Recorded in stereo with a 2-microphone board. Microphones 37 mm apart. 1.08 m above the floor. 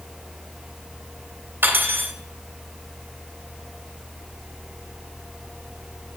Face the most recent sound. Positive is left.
turn(degrees=-75)  # may be behind; listen again after turning